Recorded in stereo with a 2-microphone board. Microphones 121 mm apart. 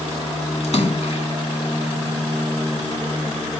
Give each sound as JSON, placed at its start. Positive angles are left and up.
{"t": 0.6, "sound": "a splash", "side_deg": 65, "distance_m": 1.2}